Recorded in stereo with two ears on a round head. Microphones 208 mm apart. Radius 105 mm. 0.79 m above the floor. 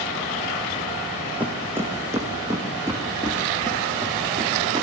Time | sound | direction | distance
1.4 | footsteps | 5° right (ahead or behind) | 1.6 m